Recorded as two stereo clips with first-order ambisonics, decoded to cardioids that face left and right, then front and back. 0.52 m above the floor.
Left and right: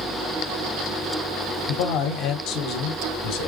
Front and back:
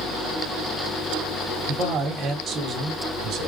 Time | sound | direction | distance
1.7 | a man speaking | 115° left | 2.5 m